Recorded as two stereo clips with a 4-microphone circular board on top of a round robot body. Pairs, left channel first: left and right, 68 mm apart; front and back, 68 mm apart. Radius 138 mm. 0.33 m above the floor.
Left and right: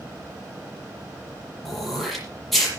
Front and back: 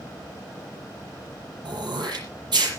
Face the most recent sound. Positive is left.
turn(degrees=180)